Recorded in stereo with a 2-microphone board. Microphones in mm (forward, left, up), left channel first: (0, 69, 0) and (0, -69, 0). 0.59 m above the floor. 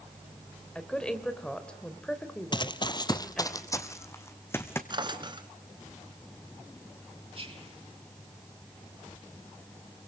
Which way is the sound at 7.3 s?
45° right (ahead or behind).